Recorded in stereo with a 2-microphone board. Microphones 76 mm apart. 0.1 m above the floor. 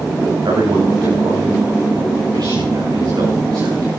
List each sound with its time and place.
0.5 s a man speaking: 65° right (ahead or behind), 8 m